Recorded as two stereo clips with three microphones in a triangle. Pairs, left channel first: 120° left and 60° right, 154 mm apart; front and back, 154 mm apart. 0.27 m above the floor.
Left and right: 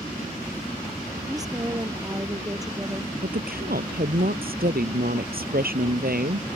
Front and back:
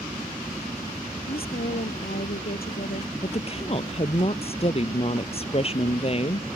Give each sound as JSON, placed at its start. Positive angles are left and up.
{"t": 1.3, "sound": "a woman speaking", "azimuth_deg": 5}
{"t": 3.2, "sound": "a woman speaking", "azimuth_deg": -50}